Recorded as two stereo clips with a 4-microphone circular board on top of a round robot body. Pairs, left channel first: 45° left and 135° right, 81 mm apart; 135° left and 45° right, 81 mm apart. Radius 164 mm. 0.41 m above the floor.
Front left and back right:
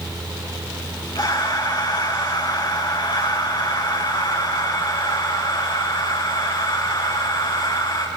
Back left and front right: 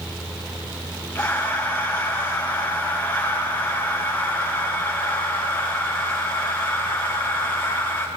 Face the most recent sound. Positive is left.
turn(degrees=60)